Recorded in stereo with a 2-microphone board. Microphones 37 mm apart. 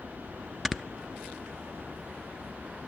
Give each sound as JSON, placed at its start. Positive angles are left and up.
{"t": 0.7, "sound": "snoring", "side_deg": 0, "distance_m": 0.7}